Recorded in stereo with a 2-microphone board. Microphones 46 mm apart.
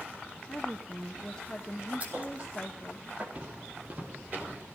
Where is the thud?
30° right (ahead or behind), 4 m.